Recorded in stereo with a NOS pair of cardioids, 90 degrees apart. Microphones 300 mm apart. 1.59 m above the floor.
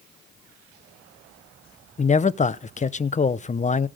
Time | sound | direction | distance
2.0 | a man speaking | 25° left | 0.8 m